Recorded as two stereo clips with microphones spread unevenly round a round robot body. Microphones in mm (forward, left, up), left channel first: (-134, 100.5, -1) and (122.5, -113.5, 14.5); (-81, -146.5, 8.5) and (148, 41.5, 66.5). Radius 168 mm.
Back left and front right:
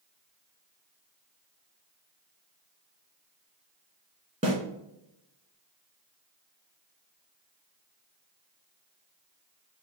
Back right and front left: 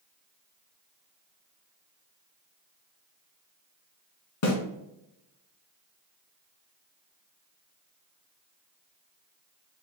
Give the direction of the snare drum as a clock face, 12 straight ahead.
4 o'clock.